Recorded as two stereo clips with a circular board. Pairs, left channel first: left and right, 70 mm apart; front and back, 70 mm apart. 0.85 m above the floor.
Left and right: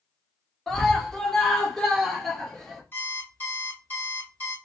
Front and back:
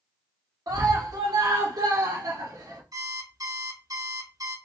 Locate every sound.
0.7 s a scream: 175° left, 1.4 m
2.9 s an alarm clock: 155° left, 3 m